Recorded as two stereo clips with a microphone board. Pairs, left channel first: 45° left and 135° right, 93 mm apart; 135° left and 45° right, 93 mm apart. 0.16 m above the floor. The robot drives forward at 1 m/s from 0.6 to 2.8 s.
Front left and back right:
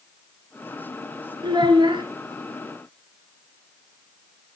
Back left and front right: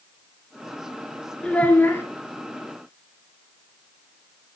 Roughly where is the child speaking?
Behind right.